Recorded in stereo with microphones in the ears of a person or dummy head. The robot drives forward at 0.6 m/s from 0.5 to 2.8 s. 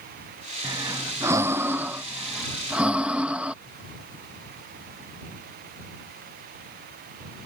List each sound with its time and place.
0.6 s breathing: 10° right (ahead or behind); by 3.5 s 5° right (ahead or behind)